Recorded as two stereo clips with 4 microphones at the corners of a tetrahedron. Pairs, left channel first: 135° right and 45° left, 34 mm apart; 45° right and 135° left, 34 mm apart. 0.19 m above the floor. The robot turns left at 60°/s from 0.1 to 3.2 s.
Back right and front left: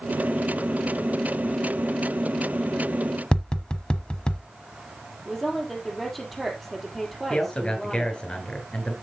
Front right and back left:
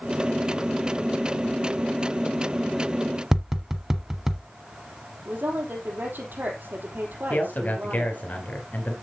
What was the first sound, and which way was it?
Tapping, 165° right.